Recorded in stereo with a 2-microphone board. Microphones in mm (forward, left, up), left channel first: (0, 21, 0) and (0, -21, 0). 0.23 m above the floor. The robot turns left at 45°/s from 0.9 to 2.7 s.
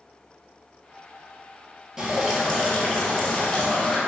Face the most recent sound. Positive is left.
turn(degrees=160)